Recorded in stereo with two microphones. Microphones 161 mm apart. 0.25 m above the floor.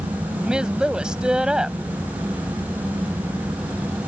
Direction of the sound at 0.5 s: 5° right (ahead or behind).